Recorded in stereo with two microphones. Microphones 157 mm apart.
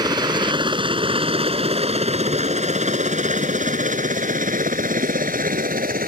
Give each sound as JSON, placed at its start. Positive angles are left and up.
{"t": 0.0, "sound": "a helicopter", "side_deg": -25}